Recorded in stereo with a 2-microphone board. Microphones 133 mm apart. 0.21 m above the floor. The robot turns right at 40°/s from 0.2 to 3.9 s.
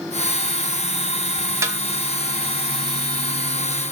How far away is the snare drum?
About 1.0 m.